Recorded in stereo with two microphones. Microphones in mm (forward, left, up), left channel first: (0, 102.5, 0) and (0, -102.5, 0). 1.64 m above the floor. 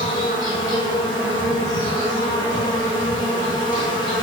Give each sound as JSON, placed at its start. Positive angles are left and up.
{"t": 0.0, "sound": "an insect", "side_deg": 20, "distance_m": 1.0}